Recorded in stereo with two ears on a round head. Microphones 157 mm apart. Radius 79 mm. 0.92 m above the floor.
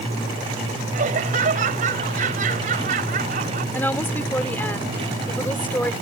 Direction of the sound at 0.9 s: 50° right (ahead or behind).